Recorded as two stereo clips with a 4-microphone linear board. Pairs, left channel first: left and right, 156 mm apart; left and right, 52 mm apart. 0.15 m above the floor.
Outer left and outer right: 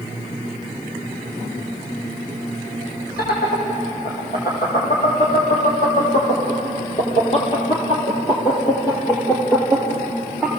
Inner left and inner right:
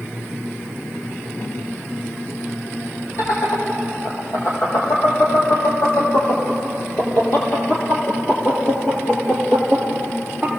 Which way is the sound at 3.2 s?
75° left (ahead or behind).